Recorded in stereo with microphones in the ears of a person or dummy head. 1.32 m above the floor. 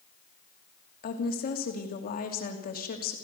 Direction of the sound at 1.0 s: 40° left (ahead or behind).